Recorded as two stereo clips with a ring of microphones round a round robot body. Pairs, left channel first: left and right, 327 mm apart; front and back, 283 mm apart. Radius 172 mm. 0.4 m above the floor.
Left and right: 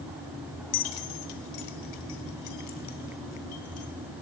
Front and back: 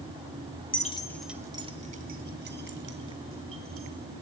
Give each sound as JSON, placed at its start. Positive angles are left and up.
{"t": 0.7, "sound": "keys jangling", "azimuth_deg": 60, "distance_m": 1.1}